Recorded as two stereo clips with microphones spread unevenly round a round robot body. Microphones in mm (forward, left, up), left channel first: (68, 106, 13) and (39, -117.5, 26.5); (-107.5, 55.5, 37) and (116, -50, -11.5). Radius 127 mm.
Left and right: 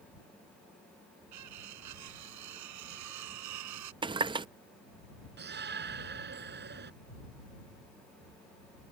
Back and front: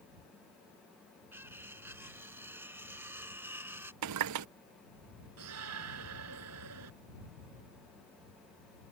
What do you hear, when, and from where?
1.3 s cutlery clinking: 110° right
4.0 s a running tap: 25° right
5.4 s a shout: 55° right